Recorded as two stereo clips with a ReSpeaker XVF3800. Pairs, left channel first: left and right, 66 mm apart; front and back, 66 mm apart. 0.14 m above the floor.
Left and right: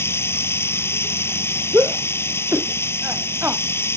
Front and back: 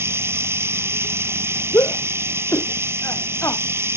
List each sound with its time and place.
0.0 s running water: 135° left
1.7 s a shout: 35° right